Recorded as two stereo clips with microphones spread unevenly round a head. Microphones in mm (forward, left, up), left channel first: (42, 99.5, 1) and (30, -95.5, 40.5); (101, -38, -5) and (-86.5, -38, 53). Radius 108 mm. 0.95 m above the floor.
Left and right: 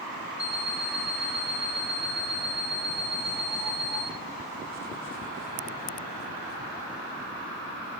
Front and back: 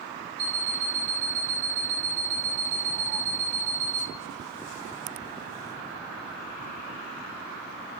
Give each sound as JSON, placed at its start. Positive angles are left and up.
{"t": 0.4, "sound": "an alarm clock", "azimuth_deg": 180, "distance_m": 1.8}